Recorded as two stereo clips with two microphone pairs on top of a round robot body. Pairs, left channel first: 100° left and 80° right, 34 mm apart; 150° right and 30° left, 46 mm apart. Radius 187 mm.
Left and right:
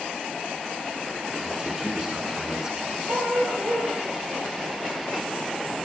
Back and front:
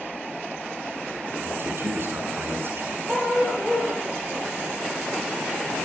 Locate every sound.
1.4 s a man speaking: 5° right, 8 m
3.1 s a dog barking: 50° right, 8 m